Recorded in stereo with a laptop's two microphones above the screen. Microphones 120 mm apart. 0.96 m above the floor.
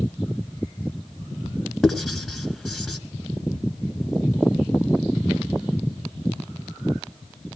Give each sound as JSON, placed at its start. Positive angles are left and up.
{"t": 1.8, "sound": "writing", "side_deg": 0, "distance_m": 3.5}